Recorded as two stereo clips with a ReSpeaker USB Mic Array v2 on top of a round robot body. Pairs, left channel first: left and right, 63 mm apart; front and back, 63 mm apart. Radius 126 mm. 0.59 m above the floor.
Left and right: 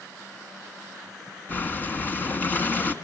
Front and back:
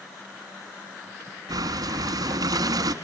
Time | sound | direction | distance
1.5 | breathing | 155° left | 1.4 m